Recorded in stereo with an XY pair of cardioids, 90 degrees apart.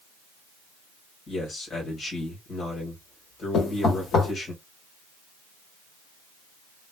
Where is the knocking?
65° left, 1.7 m.